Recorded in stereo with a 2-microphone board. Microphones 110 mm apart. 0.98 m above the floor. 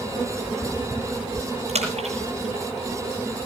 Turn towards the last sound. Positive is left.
turn(degrees=-75)  # may be behind; listen again after turning